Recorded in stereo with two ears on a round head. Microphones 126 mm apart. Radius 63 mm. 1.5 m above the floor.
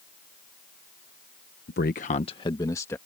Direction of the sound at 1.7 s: 80° left.